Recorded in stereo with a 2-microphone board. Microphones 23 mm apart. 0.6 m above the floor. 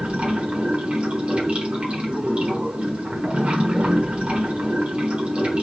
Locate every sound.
0.0 s running water: 65° right (ahead or behind), 1.5 m